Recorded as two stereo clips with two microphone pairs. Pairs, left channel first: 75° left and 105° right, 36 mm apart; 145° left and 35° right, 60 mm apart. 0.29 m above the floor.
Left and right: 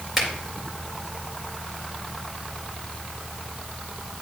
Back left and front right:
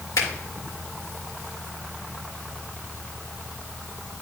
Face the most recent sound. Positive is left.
turn(degrees=170)